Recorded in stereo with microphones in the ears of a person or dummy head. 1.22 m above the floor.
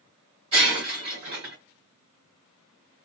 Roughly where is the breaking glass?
Right.